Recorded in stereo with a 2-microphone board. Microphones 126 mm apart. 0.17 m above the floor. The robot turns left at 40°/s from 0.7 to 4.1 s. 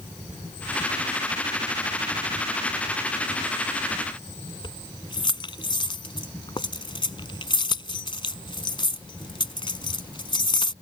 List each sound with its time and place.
4.6 s keys jangling: 40° left (ahead or behind)